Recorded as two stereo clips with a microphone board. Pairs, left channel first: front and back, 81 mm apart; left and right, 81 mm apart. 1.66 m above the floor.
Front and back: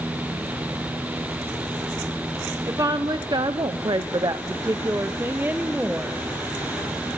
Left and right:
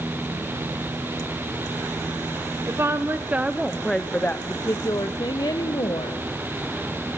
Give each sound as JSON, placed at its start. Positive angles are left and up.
{"t": 2.7, "sound": "a woman speaking", "azimuth_deg": -140, "distance_m": 0.9}